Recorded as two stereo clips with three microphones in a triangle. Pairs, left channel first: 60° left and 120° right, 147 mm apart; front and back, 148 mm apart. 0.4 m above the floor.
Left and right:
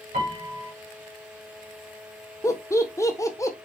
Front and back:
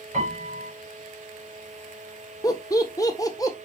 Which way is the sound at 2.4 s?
25° left.